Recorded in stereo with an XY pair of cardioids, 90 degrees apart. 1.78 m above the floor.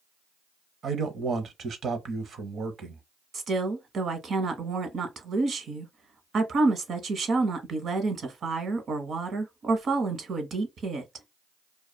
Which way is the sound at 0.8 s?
60° right.